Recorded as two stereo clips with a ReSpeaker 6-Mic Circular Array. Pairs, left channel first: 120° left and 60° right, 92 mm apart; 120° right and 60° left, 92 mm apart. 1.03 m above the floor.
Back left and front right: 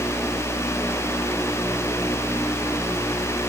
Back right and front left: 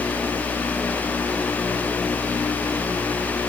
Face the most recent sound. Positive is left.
No sound to turn to.